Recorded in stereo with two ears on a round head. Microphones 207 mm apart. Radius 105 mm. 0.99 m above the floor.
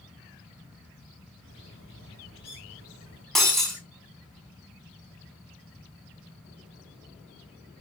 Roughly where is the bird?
Left.